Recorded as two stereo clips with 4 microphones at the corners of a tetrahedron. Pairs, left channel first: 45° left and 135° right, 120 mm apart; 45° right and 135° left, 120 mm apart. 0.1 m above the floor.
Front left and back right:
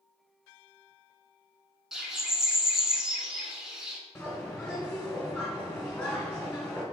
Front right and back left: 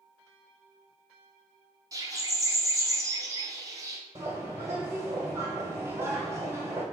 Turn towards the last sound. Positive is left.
turn(degrees=110)